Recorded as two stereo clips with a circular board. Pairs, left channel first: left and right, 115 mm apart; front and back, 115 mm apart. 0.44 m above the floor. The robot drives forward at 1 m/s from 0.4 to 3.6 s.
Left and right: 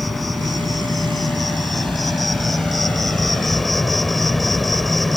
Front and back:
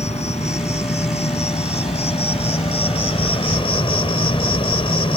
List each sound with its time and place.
0.0 s an insect: straight ahead